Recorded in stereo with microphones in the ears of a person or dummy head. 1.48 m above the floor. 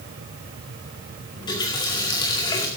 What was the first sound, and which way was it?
A running tap, 20° left (ahead or behind).